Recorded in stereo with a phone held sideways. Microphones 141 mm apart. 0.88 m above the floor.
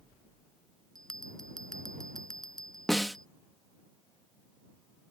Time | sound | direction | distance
0.9 | a bell | 5° left (ahead or behind) | ?
2.9 | a snare drum | centre (ahead or behind) | ?